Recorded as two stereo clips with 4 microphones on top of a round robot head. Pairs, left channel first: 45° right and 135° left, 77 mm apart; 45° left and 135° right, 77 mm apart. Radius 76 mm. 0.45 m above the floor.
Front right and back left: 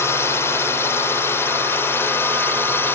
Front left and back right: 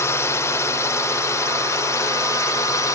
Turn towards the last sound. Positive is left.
turn(degrees=10)